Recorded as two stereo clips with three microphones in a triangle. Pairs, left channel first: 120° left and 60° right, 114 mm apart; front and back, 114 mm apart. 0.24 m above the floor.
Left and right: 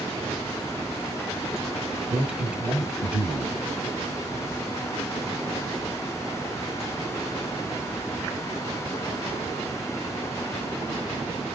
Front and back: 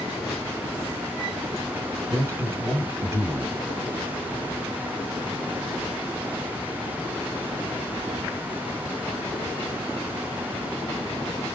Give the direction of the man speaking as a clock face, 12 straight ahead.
4 o'clock.